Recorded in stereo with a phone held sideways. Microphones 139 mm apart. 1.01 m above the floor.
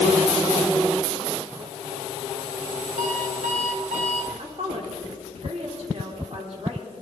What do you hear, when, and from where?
3.0 s an alarm clock: 75° right (ahead or behind), 2 m
4.4 s a woman speaking: 50° right (ahead or behind), 3.5 m